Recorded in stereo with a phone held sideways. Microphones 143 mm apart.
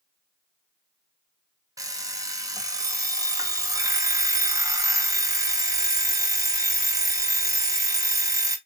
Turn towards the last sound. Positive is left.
turn(degrees=-25)  # may be behind; listen again after turning